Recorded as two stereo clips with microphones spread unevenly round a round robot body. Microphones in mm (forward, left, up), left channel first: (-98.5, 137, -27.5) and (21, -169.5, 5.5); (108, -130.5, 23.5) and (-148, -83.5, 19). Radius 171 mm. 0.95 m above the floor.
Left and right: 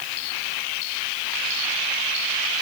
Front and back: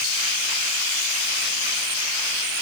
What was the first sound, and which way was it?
Only background noise.